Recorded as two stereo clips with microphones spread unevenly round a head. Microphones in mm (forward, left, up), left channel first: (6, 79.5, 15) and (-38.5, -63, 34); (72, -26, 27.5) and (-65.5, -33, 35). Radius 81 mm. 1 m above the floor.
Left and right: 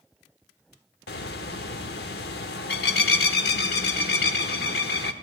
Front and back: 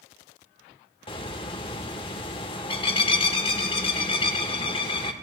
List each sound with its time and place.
1.1 s a bird: 60° left, 0.8 m